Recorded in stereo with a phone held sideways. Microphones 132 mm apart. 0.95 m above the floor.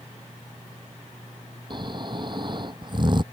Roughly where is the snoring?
Right.